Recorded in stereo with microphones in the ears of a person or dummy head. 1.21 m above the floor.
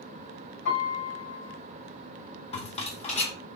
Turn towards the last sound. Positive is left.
turn(degrees=45)  # may be behind; listen again after turning